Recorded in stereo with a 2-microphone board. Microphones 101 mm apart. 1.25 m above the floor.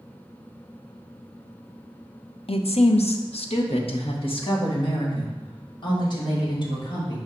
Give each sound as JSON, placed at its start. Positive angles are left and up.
{"t": 2.5, "sound": "a woman speaking", "side_deg": 70, "distance_m": 0.6}